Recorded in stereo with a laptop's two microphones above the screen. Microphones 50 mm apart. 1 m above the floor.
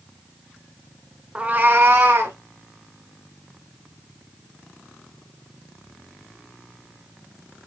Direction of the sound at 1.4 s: 20° right (ahead or behind).